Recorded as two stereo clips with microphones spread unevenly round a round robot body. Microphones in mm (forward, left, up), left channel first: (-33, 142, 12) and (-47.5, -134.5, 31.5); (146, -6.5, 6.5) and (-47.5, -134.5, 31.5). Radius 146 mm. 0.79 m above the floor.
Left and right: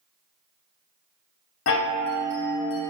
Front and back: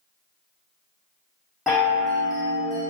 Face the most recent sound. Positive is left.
turn(degrees=120)